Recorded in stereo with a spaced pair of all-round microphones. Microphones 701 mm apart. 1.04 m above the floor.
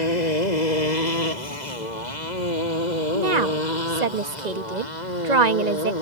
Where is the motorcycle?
75° left (ahead or behind); by 6.0 s 85° left.